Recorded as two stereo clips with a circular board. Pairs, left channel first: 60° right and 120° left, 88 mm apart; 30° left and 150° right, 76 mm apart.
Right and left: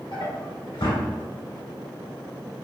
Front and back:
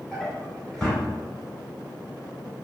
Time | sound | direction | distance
0.1 | a drawer | 50° right | 1.4 m